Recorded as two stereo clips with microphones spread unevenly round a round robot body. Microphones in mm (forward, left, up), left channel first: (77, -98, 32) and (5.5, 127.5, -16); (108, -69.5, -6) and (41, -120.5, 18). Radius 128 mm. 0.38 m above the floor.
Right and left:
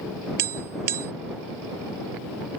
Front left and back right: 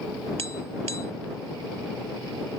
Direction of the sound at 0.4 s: 160° left.